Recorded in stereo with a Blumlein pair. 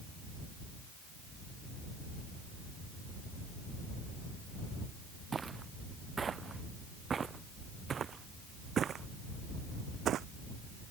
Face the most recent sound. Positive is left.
turn(degrees=-30)